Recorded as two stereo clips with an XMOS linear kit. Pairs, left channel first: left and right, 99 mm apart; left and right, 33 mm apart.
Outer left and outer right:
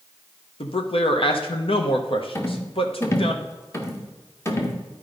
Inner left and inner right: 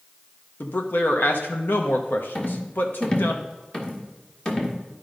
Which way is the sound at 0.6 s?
70° left (ahead or behind).